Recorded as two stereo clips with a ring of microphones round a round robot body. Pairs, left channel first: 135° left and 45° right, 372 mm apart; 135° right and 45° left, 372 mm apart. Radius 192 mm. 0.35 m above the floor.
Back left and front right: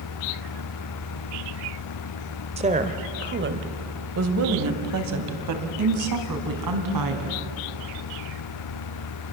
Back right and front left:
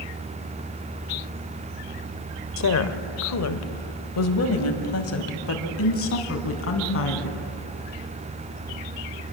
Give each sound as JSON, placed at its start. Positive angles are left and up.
{"t": 2.6, "sound": "a woman speaking", "azimuth_deg": -115, "distance_m": 1.3}